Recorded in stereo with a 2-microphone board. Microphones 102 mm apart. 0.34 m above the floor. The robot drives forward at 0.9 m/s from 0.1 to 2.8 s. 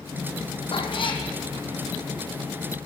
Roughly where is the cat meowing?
Left.